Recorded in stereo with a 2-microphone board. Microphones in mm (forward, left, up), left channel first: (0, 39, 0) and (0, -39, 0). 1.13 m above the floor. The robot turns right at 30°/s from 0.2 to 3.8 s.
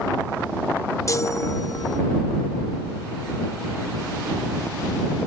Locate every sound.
1.1 s a chime: 40° left (ahead or behind); by 2.0 s 65° left (ahead or behind)